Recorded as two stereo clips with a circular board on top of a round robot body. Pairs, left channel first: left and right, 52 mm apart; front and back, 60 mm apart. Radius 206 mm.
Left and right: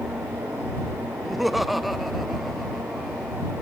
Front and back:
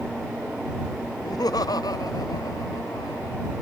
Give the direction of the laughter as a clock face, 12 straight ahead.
12 o'clock.